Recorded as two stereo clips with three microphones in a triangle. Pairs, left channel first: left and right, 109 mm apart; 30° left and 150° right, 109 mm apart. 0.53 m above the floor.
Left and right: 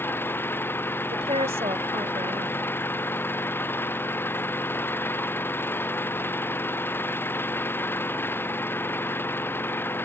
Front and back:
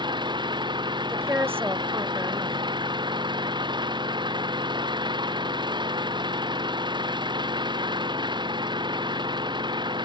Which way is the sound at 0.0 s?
160° left.